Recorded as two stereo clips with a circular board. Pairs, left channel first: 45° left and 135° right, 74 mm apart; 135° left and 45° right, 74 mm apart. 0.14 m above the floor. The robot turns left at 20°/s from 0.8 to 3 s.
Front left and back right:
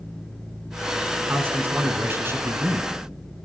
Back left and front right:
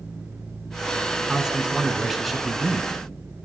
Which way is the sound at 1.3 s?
115° right.